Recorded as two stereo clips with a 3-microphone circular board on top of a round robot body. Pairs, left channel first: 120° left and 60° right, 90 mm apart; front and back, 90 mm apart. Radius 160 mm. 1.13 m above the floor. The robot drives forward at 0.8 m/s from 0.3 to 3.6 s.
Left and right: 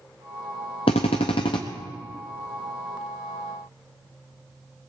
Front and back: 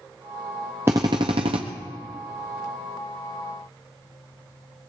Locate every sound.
0.9 s a drill: 110° left, 0.5 m; by 1.6 s 160° left, 0.9 m